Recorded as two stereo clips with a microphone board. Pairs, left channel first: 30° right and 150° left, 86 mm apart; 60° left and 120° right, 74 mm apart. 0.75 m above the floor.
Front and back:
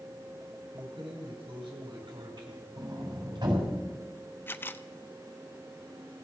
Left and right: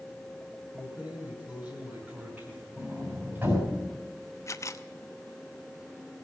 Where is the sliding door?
Straight behind, 6 m.